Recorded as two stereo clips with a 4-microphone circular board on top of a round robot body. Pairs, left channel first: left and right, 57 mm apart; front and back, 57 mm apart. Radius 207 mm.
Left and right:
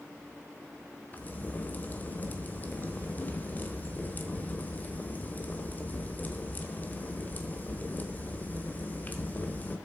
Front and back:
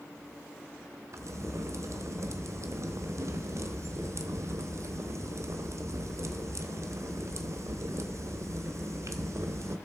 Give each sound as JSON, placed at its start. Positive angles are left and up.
{"t": 1.1, "sound": "a crack", "azimuth_deg": 150, "distance_m": 1.1}